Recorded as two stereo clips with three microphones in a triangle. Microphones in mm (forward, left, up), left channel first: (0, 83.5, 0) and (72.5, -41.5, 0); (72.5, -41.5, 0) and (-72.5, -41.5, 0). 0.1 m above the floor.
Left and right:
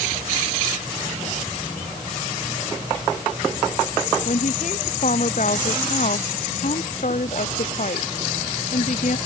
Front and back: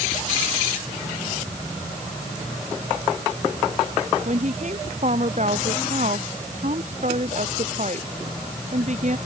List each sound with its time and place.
4.2 s a woman speaking: 150° left